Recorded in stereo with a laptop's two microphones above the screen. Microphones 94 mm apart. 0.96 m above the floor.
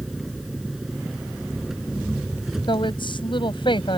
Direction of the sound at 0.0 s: 5° right (ahead or behind).